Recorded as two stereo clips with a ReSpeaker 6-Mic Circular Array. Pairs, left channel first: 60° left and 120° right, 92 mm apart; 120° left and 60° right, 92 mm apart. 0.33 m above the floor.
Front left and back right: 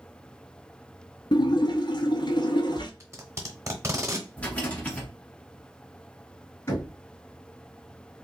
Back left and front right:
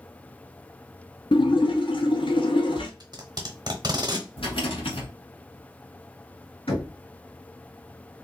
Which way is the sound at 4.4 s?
135° left.